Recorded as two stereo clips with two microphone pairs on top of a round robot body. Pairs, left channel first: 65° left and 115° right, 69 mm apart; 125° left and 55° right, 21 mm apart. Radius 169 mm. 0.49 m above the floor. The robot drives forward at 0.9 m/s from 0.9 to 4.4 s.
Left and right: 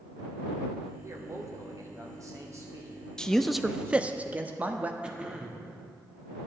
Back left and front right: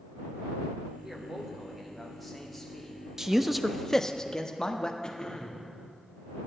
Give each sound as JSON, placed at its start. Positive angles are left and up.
{"t": 1.0, "sound": "a man speaking", "azimuth_deg": -100, "distance_m": 1.7}
{"t": 3.2, "sound": "a man speaking", "azimuth_deg": -5, "distance_m": 0.8}
{"t": 5.0, "sound": "throat clearing", "azimuth_deg": 175, "distance_m": 1.5}